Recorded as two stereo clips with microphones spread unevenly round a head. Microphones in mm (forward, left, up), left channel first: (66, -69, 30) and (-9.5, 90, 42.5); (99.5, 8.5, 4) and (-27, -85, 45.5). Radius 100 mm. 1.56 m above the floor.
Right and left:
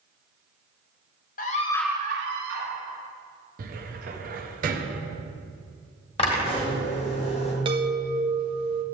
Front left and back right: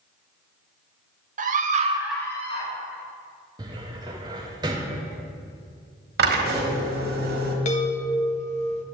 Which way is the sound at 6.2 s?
130° right.